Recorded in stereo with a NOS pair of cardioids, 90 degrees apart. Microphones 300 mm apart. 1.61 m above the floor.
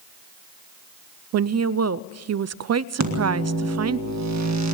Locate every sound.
1.3 s a woman speaking: 60° right, 0.5 m
3.0 s a microwave: 65° right, 1.7 m